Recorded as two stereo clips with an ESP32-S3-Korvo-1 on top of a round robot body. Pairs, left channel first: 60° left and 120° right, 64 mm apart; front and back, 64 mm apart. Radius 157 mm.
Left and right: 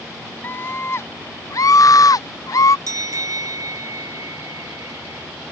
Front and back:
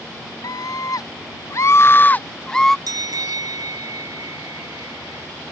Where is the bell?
155° right.